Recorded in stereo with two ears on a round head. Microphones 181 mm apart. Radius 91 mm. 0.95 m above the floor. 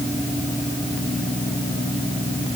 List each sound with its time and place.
Only background noise.